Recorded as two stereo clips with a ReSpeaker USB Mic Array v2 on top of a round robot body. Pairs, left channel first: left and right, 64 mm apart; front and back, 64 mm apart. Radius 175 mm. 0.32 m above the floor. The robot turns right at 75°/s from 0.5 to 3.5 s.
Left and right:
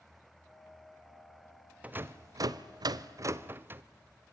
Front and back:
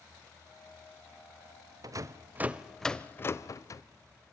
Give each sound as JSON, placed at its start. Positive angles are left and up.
{"t": 1.8, "sound": "a rattle", "azimuth_deg": -160, "distance_m": 0.8}